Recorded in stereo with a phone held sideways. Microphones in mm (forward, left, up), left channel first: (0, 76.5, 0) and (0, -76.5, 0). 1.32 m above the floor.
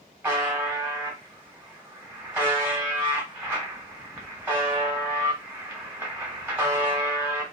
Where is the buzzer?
10° right (ahead or behind), 1.2 m.